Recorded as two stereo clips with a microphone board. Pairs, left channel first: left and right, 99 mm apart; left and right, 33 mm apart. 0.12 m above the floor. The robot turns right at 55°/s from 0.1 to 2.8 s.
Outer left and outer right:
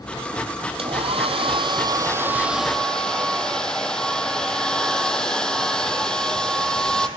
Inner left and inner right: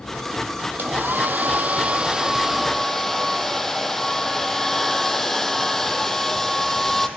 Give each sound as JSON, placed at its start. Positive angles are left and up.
{"t": 0.8, "sound": "a hair dryer", "azimuth_deg": -105, "distance_m": 0.6}